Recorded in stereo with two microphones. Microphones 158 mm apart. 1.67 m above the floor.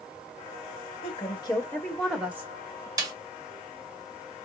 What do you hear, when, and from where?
1.0 s a woman speaking: 40° left (ahead or behind), 1.5 m; by 2.9 s 35° right (ahead or behind), 1.3 m
3.0 s a snare drum: 25° right (ahead or behind), 1.6 m